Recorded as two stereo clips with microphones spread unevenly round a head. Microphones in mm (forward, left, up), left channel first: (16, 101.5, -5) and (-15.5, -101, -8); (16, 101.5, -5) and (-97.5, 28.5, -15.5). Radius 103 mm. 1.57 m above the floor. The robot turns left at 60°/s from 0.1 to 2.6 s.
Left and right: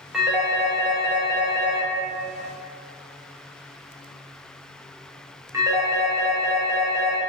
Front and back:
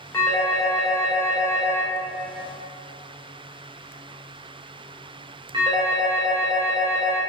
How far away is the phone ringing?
About 0.5 m.